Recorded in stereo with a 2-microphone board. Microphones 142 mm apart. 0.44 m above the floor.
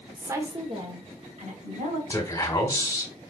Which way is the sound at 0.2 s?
5° right (ahead or behind).